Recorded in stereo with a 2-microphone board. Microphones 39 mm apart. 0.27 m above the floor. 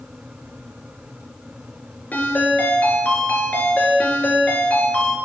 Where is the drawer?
I don't hear a drawer.